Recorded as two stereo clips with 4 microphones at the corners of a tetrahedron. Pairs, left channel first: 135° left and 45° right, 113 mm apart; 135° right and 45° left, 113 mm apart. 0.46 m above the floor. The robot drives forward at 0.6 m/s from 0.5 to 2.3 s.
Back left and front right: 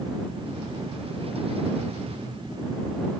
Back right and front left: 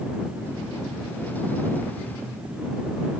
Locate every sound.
Only background noise.